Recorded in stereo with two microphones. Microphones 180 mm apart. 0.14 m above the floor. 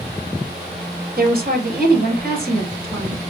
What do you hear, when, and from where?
1.2 s a woman speaking: 50° right (ahead or behind), 3 m